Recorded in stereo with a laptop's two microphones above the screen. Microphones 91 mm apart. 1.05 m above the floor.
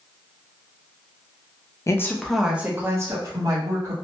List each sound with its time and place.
1.9 s a woman speaking: 30° left (ahead or behind), 0.5 m; by 3.9 s 40° right (ahead or behind), 1.5 m